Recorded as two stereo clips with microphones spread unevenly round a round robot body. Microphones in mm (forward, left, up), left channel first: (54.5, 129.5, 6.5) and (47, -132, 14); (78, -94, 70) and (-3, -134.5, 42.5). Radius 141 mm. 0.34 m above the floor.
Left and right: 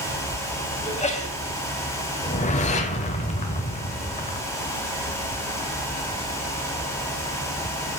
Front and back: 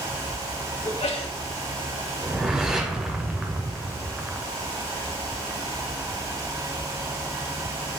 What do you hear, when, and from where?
0.8 s a sneeze: 25° left, 2 m
2.2 s a whoosh: 145° left, 0.8 m